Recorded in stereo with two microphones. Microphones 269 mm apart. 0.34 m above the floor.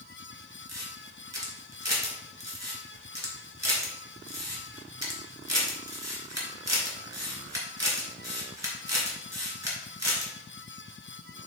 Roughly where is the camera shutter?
Right.